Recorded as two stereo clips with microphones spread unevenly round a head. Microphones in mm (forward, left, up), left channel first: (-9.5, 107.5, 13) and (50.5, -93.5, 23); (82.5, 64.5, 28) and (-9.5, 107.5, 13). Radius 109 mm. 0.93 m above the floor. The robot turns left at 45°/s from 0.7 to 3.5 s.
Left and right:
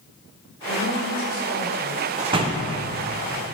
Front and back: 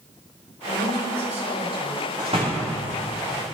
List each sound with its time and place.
0.7 s a woman speaking: straight behind, 2.0 m; by 2.1 s 115° left, 2.0 m
2.2 s a door slam: 135° right, 0.7 m; by 2.8 s 165° right, 0.7 m